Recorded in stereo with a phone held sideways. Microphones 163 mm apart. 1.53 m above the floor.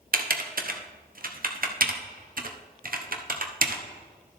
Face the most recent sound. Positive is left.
turn(degrees=-60)  # may be behind; listen again after turning